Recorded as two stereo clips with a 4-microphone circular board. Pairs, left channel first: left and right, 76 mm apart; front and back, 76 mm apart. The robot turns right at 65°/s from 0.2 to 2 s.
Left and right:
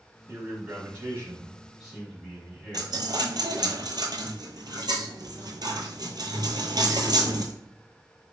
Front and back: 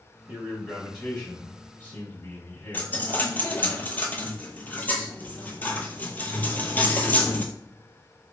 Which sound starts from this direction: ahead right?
A dropped coin, at 2.7 s.